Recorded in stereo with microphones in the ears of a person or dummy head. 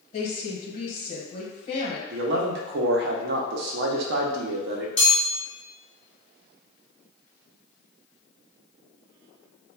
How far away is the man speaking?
About 0.7 m.